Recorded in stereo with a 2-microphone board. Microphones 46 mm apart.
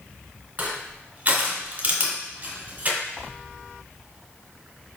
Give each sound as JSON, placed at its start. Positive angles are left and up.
{"t": 0.6, "sound": "crushing", "side_deg": -35, "distance_m": 1.5}